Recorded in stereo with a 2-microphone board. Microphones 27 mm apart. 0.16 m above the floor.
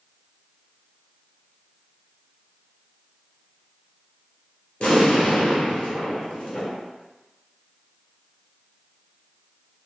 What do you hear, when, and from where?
4.8 s an explosion: 45° left (ahead or behind), 1.5 m